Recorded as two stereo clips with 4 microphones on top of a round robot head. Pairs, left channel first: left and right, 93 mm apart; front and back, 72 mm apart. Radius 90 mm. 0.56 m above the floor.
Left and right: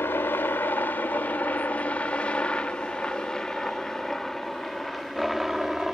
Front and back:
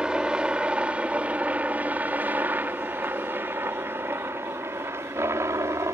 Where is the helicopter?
120° left; by 5.9 s 175° right.